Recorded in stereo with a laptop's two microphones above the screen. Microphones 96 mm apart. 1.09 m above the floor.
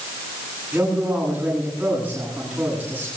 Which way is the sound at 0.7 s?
15° right (ahead or behind).